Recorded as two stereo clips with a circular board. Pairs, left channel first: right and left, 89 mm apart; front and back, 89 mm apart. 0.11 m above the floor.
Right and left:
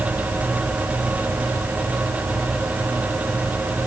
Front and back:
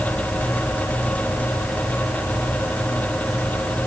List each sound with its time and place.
Only background noise.